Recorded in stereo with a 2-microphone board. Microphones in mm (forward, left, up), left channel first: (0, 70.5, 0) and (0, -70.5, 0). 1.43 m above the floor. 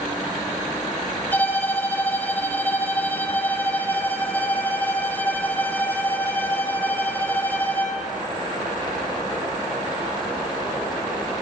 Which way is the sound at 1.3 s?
15° left (ahead or behind).